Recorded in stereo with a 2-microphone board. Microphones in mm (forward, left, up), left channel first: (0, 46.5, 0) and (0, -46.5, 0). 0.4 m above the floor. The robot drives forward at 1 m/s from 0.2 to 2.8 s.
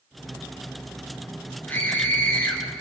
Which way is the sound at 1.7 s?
20° left (ahead or behind).